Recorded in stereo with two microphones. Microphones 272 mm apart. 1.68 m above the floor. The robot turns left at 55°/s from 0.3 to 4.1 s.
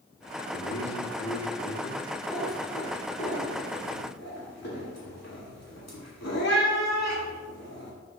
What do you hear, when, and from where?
0.5 s a man speaking: 115° left, 1.3 m; by 2.1 s 30° left, 1.3 m
2.3 s a cat meowing: 10° right (ahead or behind), 2 m; by 7.9 s 65° left (ahead or behind), 2 m